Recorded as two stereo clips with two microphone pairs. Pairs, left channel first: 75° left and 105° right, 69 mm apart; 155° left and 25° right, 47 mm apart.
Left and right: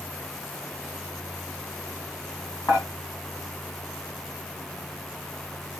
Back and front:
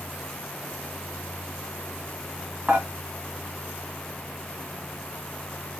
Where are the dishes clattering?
50° left, 1.5 m.